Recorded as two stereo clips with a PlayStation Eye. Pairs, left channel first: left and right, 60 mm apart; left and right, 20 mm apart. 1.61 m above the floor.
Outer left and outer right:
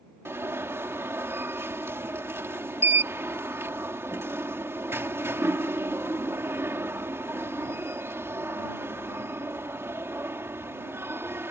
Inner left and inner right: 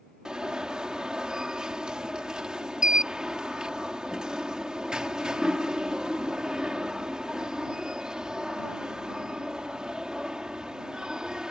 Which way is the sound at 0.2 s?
45° right (ahead or behind).